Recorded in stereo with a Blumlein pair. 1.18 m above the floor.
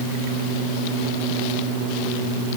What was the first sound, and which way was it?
Only background noise.